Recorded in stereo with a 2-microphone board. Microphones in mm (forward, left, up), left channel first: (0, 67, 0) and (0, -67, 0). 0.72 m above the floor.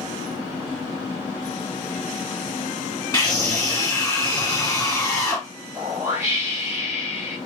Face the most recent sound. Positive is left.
turn(degrees=-20)  # may be behind; listen again after turning